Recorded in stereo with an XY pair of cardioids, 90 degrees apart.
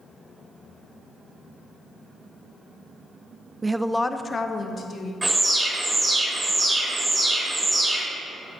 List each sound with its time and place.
3.6 s a woman speaking: 25° right, 0.5 m; by 5.1 s 60° left, 1.5 m
5.2 s an alarm: 20° right, 3 m